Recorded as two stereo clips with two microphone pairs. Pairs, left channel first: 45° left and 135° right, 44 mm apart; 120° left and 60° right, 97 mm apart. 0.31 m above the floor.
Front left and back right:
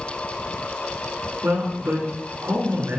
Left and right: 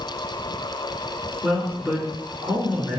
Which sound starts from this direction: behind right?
A man speaking, at 1.4 s.